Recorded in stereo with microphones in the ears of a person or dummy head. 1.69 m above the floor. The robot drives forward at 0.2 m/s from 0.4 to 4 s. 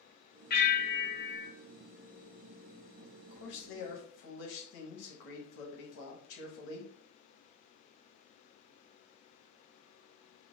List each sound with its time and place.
0.5 s a bell: 50° left (ahead or behind), 0.7 m; by 1.5 s 40° left (ahead or behind), 0.8 m
3.0 s a man speaking: 75° left (ahead or behind), 0.8 m; by 6.9 s 70° left (ahead or behind), 0.8 m